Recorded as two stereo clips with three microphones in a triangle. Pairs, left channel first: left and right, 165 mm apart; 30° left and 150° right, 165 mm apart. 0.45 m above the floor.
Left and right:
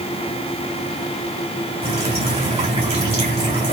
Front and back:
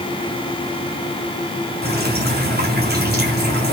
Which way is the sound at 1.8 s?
145° right.